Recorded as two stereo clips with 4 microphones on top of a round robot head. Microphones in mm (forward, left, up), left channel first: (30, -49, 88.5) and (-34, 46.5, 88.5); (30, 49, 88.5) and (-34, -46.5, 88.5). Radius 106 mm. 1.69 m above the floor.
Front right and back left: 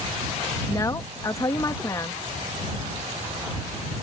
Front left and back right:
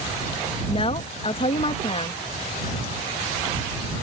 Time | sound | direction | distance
0.7 | a woman speaking | 10° left | ?